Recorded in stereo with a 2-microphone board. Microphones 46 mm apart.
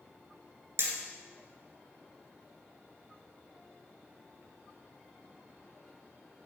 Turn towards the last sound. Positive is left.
turn(degrees=-65)  # may be behind; listen again after turning